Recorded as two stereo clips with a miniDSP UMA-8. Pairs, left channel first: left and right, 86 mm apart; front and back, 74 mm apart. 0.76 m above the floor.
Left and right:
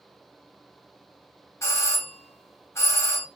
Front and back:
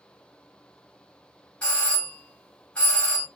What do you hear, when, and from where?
1.6 s a doorbell: 60° left, 1.0 m